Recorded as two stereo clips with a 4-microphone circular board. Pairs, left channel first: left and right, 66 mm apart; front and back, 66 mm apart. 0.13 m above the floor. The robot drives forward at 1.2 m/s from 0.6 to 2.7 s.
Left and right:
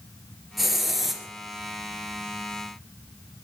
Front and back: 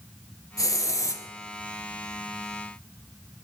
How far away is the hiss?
About 3 m.